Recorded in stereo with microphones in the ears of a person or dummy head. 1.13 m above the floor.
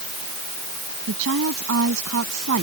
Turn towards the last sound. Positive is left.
turn(degrees=-65)  # may be behind; listen again after turning